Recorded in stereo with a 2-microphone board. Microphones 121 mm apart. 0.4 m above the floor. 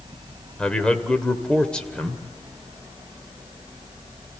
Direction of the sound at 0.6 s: 10° left (ahead or behind).